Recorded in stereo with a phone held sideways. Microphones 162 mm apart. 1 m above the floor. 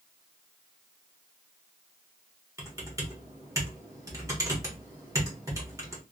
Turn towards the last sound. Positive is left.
turn(degrees=-20)  # may be behind; listen again after turning